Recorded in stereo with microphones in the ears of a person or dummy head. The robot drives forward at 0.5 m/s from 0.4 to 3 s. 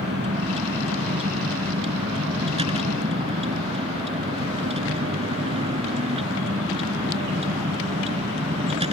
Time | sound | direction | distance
0.0 | a vehicle | 30° right (ahead or behind) | ?